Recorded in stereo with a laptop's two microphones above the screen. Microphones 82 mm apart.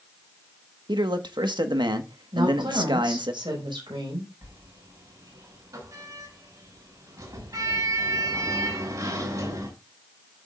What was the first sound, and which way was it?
A man speaking, 65° right (ahead or behind).